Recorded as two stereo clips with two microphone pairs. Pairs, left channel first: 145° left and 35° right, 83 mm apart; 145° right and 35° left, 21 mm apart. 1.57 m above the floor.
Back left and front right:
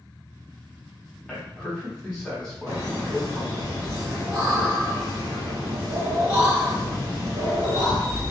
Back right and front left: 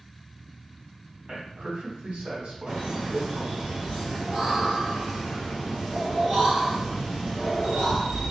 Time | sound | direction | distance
1.3 | a man speaking | 60° left | 1.2 m
2.7 | laughter | 10° right | 1.3 m